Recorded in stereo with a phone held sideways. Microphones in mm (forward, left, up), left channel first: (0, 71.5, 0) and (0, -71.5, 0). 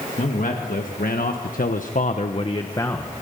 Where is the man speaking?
70° left (ahead or behind), 2 m; by 3.1 s 15° left (ahead or behind), 1.3 m.